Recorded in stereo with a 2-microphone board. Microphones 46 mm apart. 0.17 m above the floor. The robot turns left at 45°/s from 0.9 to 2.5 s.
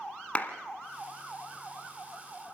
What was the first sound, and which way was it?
A clap, 30° left (ahead or behind).